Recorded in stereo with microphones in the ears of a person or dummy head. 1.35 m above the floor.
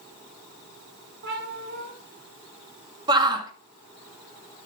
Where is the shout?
25° right (ahead or behind), 2.0 m.